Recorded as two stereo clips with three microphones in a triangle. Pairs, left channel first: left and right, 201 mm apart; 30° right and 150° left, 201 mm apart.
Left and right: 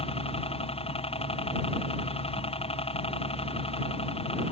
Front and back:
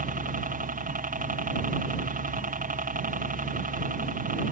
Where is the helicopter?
135° left.